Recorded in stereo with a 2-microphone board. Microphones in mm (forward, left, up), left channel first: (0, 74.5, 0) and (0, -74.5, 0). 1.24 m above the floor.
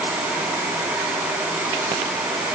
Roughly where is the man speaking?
I don't hear a man speaking.